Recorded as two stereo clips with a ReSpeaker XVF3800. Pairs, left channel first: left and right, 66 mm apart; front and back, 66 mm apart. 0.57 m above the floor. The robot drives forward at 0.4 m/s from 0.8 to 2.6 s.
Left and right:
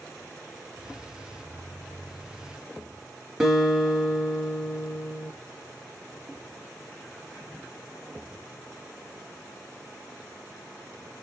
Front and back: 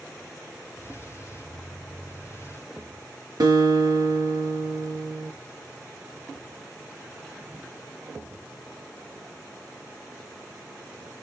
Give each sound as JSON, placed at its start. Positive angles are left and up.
{"t": 3.4, "sound": "a guitar", "azimuth_deg": -170, "distance_m": 3.0}